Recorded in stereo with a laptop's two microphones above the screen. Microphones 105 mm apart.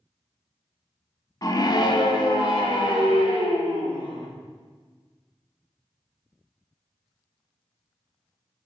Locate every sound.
1.4 s a scream: 35° left (ahead or behind), 0.7 m; by 4.3 s 55° left (ahead or behind), 2.5 m